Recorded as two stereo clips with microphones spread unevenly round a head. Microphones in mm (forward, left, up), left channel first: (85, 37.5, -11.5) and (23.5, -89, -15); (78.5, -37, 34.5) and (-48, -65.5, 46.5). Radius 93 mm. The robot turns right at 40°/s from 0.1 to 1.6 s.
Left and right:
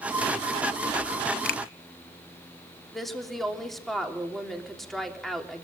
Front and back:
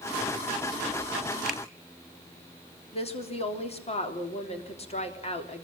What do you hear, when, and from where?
1.4 s a finger snap: 100° left, 1.2 m; by 1.6 s 110° left, 1.2 m
2.9 s a woman speaking: 25° right, 3.5 m